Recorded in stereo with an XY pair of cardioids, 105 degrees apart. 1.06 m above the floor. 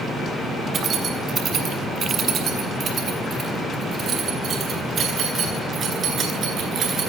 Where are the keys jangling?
50° right, 7 m; by 7.1 s 55° right, 11.5 m.